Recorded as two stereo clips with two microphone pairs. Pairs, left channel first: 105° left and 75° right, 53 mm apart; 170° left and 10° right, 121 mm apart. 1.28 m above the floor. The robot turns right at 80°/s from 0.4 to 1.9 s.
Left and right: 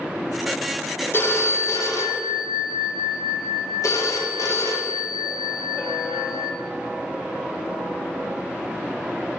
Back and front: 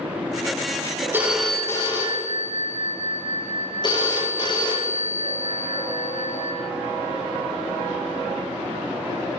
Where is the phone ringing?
55° left, 0.8 m; by 6.5 s 115° left, 0.8 m.